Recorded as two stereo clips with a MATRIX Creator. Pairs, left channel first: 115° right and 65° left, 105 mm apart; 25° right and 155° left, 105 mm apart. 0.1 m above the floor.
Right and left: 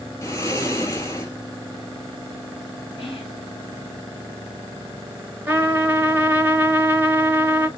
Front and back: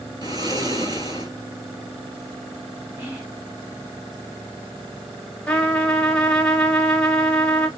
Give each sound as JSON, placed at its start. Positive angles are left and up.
{"t": 0.2, "sound": "snoring", "azimuth_deg": -165, "distance_m": 1.2}
{"t": 3.0, "sound": "whispering", "azimuth_deg": -140, "distance_m": 3.0}
{"t": 5.5, "sound": "a trumpet", "azimuth_deg": 40, "distance_m": 0.8}